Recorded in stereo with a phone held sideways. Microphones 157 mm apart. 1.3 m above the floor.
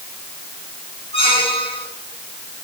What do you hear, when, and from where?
1.1 s a squeak: 40° left (ahead or behind), 5.5 m